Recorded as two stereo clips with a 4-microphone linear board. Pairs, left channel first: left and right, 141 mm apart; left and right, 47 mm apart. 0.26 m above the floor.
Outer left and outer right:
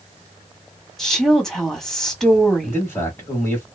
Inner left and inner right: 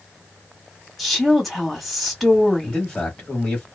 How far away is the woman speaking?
About 1.3 m.